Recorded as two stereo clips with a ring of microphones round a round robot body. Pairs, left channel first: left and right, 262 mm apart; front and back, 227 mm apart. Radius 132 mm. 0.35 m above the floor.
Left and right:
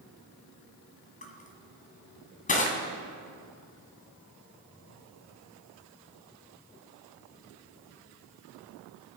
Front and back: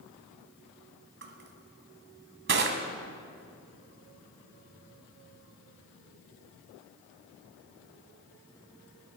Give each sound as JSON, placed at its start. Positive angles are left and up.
{"t": 1.2, "sound": "crushing", "azimuth_deg": 150, "distance_m": 2.0}